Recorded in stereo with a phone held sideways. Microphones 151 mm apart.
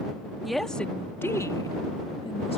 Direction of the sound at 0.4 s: Centre (ahead or behind).